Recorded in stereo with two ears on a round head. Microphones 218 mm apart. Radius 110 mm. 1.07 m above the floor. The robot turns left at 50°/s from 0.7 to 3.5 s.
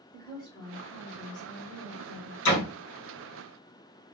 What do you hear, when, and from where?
0.1 s a woman speaking: 170° left, 2.5 m; by 2.4 s 90° left, 2.5 m
2.5 s a door slam: 85° left, 3.5 m; by 2.6 s 75° left (ahead or behind), 3.5 m